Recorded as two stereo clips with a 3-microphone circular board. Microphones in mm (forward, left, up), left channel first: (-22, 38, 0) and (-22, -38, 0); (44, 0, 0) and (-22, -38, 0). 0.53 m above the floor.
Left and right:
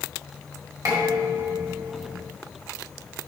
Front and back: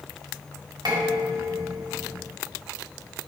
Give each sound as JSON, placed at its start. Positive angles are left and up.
{"t": 0.8, "sound": "dishes clattering", "azimuth_deg": -120, "distance_m": 3.0}